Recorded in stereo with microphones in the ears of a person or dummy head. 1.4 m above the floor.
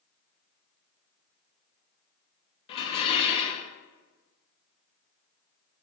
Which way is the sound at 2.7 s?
35° left (ahead or behind).